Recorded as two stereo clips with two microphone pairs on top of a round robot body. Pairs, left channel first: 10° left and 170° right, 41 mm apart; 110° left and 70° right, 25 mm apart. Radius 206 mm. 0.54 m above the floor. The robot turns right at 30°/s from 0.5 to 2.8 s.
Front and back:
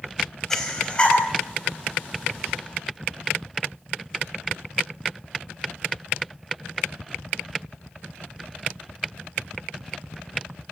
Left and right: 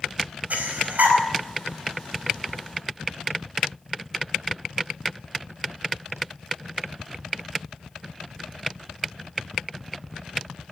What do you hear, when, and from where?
0.5 s breathing: 65° right, 4.5 m; by 1.2 s 45° right, 4.5 m